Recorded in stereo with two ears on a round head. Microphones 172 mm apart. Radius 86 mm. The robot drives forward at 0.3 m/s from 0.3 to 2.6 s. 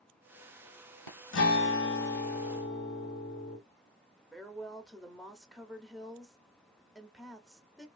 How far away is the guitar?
About 1.1 m.